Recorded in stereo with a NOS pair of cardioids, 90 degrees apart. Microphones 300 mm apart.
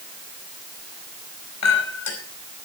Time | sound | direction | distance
1.6 | a clink | 65° left | 4.5 m